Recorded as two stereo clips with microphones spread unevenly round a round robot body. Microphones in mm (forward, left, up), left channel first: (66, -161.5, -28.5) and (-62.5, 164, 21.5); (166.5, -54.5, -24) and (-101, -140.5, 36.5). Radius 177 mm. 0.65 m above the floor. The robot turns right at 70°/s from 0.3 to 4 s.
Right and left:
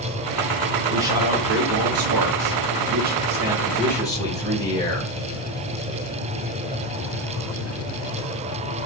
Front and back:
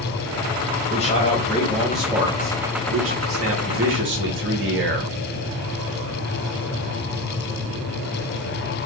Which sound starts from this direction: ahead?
A man speaking, at 0.9 s.